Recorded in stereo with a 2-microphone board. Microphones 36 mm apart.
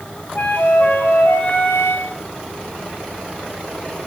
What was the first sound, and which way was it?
A flute, 70° left (ahead or behind).